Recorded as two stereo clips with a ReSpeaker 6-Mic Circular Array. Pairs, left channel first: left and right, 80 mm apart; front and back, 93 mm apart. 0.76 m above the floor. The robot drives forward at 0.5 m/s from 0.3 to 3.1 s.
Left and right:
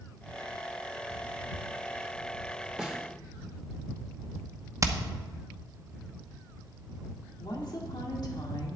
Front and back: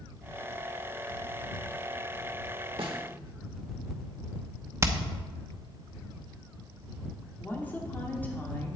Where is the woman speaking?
70° left, 2 m.